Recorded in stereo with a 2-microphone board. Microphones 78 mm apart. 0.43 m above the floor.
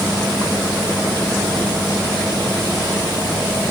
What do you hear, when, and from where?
Only background noise.